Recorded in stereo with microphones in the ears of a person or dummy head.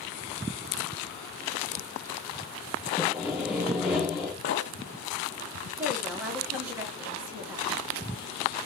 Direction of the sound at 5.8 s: 5° right (ahead or behind).